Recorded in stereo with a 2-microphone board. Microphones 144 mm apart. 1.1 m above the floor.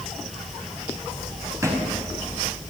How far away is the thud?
About 4 m.